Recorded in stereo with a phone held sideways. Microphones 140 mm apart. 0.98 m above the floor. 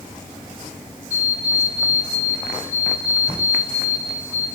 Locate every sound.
1.1 s an alarm clock: 80° left, 4 m